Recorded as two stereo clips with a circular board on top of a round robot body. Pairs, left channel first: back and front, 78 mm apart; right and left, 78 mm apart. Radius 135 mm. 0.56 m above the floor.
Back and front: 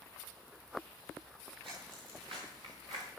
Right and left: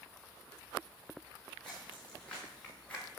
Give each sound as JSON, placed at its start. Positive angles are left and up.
{"t": 1.6, "sound": "footsteps", "azimuth_deg": -10, "distance_m": 6.5}